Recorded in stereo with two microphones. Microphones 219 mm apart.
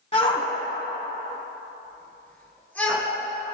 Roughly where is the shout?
Left.